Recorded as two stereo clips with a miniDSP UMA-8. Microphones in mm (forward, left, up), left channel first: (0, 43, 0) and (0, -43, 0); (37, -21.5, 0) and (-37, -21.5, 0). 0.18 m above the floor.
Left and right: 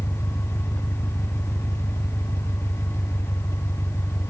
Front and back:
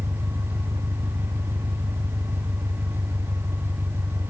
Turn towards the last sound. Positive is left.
turn(degrees=170)